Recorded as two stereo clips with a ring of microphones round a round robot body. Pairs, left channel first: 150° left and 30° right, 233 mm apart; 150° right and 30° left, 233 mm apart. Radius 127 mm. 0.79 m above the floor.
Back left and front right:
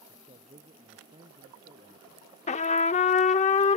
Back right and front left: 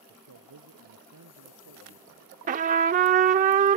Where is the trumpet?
90° left.